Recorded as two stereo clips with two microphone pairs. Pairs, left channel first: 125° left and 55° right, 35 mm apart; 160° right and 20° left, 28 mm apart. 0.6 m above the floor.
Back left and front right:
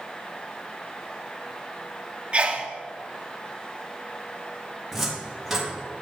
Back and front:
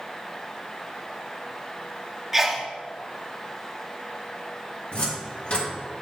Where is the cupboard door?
130° right, 1.5 m.